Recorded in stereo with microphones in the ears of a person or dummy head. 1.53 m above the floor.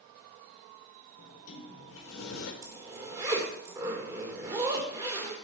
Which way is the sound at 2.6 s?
20° right (ahead or behind).